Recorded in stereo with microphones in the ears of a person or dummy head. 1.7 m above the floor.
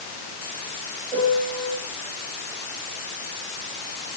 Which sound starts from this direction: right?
A piano, at 1.1 s.